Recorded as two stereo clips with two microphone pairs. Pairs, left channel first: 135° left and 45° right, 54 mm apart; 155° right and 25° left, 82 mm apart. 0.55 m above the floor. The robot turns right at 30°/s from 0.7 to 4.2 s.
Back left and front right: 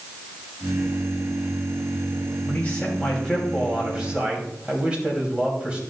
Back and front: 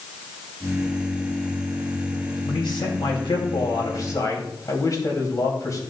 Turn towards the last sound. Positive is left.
turn(degrees=-110)